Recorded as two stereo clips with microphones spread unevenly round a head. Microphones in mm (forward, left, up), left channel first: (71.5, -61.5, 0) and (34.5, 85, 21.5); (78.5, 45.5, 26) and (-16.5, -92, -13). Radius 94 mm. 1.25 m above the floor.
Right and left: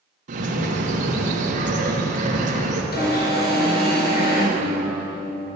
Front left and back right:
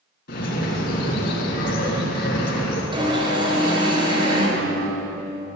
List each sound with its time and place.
0.3 s a bird: 80° left, 3 m
2.9 s an alarm: 60° right, 4 m
4.6 s a guitar: 105° right, 3 m